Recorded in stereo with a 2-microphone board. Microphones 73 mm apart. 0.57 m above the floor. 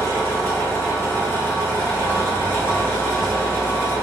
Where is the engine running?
45° left (ahead or behind), 1.4 m.